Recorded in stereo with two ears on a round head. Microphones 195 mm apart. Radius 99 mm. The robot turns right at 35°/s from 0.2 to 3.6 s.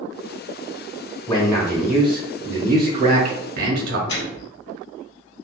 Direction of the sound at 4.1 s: 55° left (ahead or behind).